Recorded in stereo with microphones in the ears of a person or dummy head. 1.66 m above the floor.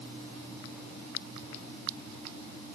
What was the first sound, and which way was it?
Only background noise.